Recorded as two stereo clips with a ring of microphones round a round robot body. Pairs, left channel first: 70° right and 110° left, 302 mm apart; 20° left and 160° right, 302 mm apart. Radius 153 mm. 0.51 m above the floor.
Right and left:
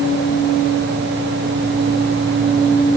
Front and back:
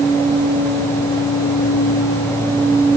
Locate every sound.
Only background noise.